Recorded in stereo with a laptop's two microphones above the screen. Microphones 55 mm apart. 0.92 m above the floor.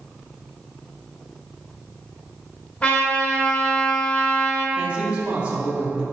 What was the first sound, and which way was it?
A trumpet, 25° left (ahead or behind).